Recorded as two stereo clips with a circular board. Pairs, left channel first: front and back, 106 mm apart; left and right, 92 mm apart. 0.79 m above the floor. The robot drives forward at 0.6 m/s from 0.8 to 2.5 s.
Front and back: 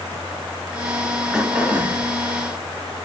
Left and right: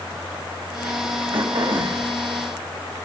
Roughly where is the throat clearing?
Right.